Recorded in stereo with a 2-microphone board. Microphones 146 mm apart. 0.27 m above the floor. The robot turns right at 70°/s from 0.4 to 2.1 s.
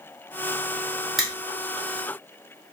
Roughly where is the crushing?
Centre.